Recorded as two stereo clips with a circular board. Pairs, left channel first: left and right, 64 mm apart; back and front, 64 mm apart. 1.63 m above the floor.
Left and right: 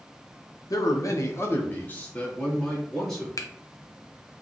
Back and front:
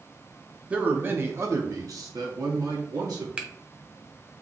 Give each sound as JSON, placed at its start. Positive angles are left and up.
{"t": 0.7, "sound": "a man speaking", "azimuth_deg": 70, "distance_m": 0.8}
{"t": 3.4, "sound": "a finger snap", "azimuth_deg": 70, "distance_m": 0.5}